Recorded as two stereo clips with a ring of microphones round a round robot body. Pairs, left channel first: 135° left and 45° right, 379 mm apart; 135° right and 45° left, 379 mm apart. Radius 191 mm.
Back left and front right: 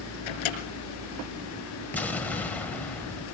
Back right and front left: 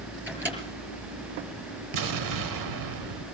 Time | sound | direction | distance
0.3 | a microwave | 130° left | 4.5 m
1.9 | an explosion | 50° left | 1.2 m